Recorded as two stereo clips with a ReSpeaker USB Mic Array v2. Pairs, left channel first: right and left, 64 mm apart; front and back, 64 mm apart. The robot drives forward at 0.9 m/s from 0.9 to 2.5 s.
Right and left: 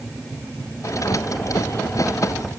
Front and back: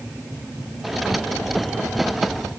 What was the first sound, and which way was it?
Only background noise.